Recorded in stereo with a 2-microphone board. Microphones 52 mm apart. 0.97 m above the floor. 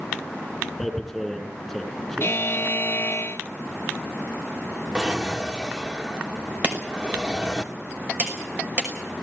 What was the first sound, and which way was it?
Tearing paper, 5° left (ahead or behind).